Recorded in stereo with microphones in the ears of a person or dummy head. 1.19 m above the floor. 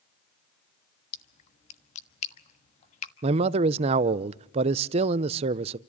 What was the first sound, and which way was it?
A splash, 35° left (ahead or behind).